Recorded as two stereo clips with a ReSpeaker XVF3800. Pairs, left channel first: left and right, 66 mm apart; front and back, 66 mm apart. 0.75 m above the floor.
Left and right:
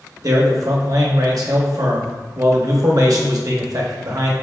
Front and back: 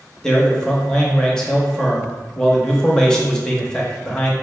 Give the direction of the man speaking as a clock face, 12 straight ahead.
3 o'clock.